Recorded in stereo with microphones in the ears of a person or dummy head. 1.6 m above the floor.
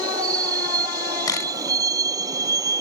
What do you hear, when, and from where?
0.0 s a vehicle: 20° right (ahead or behind)
1.3 s a camera shutter: 20° left (ahead or behind)